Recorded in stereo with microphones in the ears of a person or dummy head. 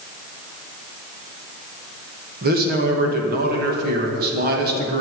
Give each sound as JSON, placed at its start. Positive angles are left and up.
{"t": 2.4, "sound": "a man speaking", "side_deg": -60, "distance_m": 2.5}